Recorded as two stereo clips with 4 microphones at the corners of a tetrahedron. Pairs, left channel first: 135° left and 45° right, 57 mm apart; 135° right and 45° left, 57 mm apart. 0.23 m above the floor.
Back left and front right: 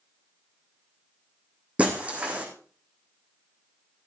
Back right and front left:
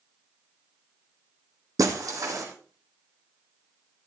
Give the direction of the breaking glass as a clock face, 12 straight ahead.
11 o'clock.